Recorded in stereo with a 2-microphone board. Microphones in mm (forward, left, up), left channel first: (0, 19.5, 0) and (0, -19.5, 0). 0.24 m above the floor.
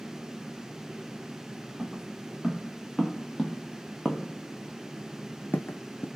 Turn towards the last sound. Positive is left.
turn(degrees=70)  # may be behind; listen again after turning